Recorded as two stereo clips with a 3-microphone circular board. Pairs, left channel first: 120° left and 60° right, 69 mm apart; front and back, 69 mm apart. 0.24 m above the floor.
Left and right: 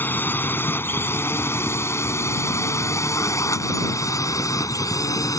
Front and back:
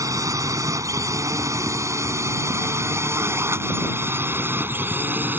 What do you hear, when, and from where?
0.0 s a drone: 175° left; by 5.4 s 125° left